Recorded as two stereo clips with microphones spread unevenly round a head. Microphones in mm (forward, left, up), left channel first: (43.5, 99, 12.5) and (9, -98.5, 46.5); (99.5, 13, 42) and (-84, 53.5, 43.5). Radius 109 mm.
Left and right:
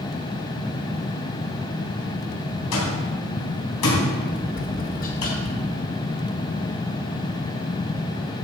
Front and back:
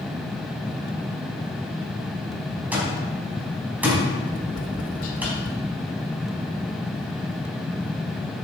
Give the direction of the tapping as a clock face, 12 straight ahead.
11 o'clock.